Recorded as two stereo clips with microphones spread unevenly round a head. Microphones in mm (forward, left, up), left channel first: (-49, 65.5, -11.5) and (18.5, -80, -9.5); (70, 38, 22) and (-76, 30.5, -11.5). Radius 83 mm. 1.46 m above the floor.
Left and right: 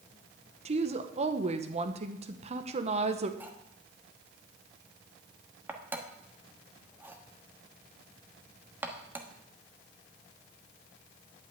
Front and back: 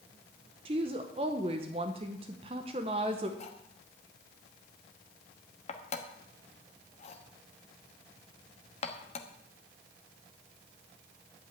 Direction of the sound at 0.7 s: 115° right.